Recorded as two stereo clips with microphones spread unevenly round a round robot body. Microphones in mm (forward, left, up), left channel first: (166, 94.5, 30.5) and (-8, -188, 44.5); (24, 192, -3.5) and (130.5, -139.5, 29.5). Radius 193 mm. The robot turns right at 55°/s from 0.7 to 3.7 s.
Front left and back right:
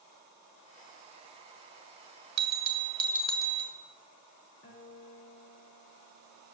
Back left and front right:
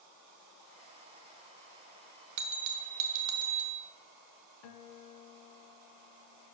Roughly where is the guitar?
Behind left.